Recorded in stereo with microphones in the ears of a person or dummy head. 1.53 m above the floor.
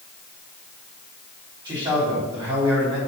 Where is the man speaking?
20° right (ahead or behind), 4 m.